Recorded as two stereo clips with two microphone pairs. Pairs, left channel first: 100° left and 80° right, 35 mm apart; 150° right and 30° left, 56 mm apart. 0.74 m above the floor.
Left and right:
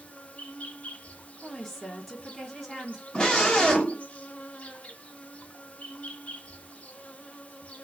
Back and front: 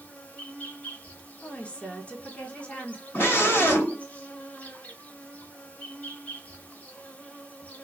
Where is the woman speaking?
175° left, 1.0 m.